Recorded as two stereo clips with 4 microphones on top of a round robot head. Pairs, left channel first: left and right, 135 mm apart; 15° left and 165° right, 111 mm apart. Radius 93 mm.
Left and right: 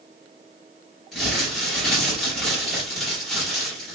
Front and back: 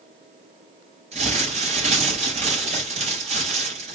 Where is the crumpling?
Straight behind, 6.5 m.